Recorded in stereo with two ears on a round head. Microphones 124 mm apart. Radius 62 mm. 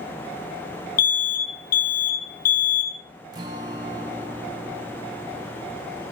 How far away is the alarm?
About 2.5 m.